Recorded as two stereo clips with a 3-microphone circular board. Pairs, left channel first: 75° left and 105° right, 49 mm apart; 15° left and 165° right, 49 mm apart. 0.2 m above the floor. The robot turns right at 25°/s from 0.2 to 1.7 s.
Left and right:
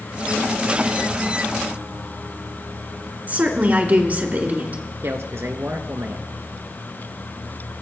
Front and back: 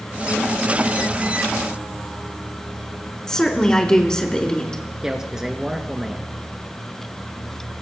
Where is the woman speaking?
60° right, 2.5 m.